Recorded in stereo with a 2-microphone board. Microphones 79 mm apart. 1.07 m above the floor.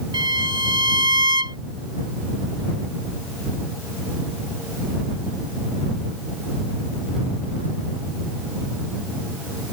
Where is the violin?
80° right.